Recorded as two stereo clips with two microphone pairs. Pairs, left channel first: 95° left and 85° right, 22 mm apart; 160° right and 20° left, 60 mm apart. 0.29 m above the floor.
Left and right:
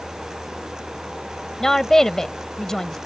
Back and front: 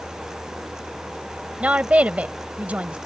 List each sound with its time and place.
1.6 s a woman speaking: 50° left